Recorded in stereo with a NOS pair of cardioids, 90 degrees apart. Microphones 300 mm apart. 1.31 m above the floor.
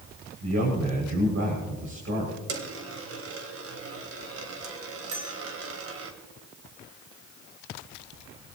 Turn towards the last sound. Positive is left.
turn(degrees=-65)